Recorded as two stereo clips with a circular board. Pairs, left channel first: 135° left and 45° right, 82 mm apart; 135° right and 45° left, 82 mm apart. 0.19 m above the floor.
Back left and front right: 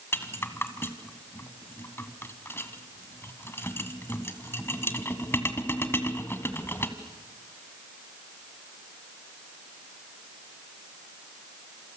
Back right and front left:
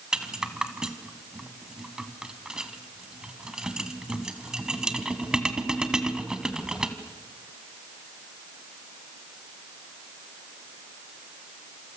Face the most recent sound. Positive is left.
turn(degrees=115)